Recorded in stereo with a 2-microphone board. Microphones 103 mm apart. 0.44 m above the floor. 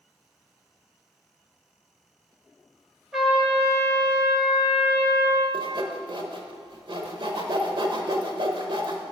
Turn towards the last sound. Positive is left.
turn(degrees=-55)  # may be behind; listen again after turning